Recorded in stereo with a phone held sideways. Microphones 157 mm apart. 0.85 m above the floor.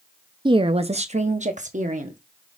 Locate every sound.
0.5 s a woman speaking: 30° right (ahead or behind), 0.5 m; by 2.2 s 55° right (ahead or behind), 1.3 m